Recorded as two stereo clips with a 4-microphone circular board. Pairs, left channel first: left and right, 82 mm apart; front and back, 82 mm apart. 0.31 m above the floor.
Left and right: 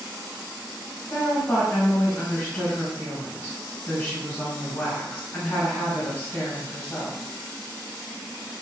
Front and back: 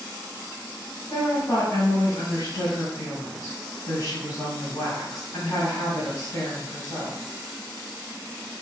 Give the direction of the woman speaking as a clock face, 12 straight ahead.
11 o'clock.